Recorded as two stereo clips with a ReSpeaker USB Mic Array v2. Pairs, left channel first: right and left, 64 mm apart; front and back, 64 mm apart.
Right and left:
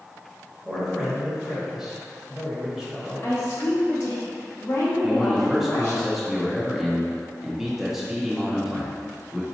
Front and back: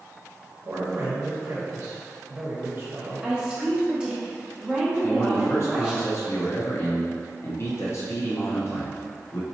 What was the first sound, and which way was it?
A man speaking, 165° left.